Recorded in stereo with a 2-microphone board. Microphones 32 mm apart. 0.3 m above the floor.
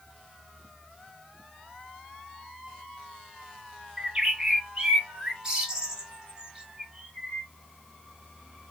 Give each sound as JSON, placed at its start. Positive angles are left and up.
{"t": 4.0, "sound": "a bird", "side_deg": -25, "distance_m": 0.9}